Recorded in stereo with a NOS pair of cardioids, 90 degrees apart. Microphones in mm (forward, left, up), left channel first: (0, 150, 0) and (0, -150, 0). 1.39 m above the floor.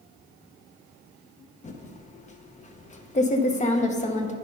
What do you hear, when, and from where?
1.6 s typing on a keyboard: 25° left, 0.9 m